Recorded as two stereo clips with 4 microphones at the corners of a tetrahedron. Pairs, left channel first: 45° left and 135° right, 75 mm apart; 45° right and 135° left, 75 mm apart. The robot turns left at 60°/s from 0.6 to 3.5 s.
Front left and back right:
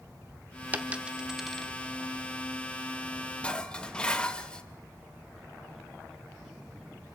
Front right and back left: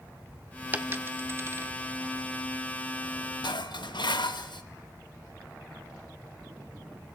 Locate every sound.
0.7 s a dropped coin: straight behind, 0.8 m; by 1.7 s 120° left, 0.8 m
3.4 s dishes clattering: 30° right, 0.9 m; by 4.6 s 35° right, 0.9 m